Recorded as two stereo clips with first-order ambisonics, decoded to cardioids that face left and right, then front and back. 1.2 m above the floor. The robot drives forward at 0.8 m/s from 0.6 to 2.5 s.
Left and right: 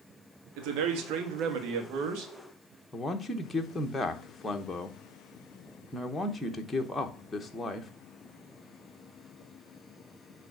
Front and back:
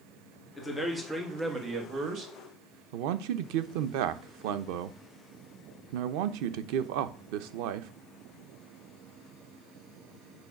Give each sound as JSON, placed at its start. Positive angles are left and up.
{"t": 0.6, "sound": "a man speaking", "azimuth_deg": -80, "distance_m": 1.5}
{"t": 2.9, "sound": "a man speaking", "azimuth_deg": 170, "distance_m": 0.8}